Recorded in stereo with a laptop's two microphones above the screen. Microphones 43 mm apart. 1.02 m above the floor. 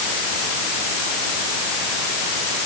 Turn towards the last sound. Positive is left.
No sound to turn to.